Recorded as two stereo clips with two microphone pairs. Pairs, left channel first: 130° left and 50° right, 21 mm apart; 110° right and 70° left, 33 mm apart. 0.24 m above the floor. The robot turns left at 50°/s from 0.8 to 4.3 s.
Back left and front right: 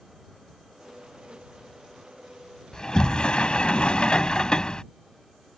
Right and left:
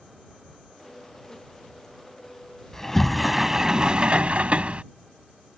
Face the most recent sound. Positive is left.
turn(degrees=95)